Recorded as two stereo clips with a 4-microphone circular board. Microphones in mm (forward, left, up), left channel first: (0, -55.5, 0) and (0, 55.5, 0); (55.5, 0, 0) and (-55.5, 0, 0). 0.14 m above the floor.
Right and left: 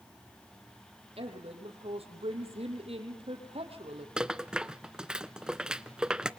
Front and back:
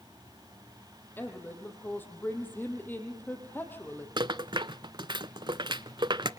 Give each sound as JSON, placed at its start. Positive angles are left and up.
{"t": 1.2, "sound": "a woman speaking", "azimuth_deg": 70, "distance_m": 5.0}
{"t": 4.2, "sound": "a rattle", "azimuth_deg": 170, "distance_m": 0.6}